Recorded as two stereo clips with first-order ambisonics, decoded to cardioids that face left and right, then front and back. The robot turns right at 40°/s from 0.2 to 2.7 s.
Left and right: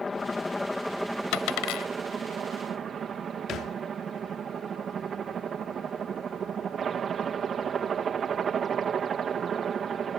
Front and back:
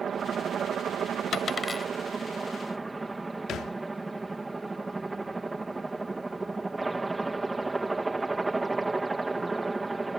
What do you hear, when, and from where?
0.0 s a helicopter: 150° left; by 10.2 s 110° right
1.3 s a dropped coin: 60° left; by 1.9 s 85° left
3.5 s a thud: 45° left